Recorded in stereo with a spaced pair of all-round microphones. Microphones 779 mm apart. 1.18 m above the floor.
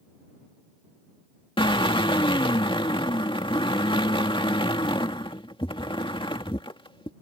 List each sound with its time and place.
1.6 s a drill: 5° left (ahead or behind)